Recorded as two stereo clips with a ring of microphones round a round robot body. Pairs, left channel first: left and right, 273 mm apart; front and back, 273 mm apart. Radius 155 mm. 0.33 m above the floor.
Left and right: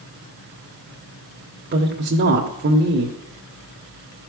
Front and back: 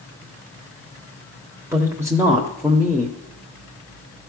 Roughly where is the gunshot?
I don't hear a gunshot.